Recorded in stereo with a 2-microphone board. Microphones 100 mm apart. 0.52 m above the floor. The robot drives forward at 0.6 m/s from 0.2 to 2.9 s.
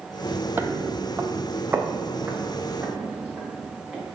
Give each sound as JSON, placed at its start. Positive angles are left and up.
{"t": 0.6, "sound": "footsteps", "side_deg": -20, "distance_m": 0.6}